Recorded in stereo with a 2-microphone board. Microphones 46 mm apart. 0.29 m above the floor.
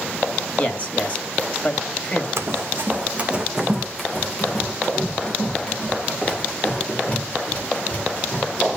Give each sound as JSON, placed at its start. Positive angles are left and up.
{"t": 0.6, "sound": "a man speaking", "side_deg": 35, "distance_m": 1.5}
{"t": 2.4, "sound": "running footsteps", "side_deg": -70, "distance_m": 1.3}